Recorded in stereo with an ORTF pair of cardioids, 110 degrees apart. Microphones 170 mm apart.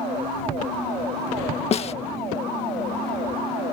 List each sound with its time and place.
1.7 s a snare drum: 40° left